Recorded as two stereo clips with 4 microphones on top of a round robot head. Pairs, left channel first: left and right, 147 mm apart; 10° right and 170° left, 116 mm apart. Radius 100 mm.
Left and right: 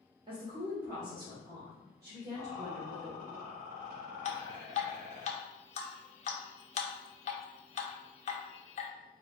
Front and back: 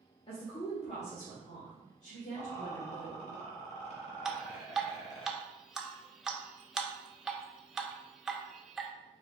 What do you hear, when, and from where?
0.3 s a woman speaking: 40° right, 0.8 m; by 3.4 s 15° right, 2.5 m
2.4 s a rattle: 5° right, 1.6 m
4.2 s dripping: 85° left, 0.7 m